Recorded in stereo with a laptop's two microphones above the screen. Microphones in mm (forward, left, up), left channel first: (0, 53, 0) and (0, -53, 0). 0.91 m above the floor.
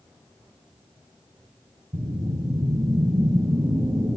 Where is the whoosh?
45° right (ahead or behind), 6.5 m.